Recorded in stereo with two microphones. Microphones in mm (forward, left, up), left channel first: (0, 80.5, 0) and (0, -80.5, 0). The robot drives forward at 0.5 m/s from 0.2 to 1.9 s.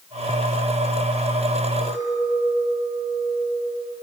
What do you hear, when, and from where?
1.8 s a clink: 25° left (ahead or behind), 9 m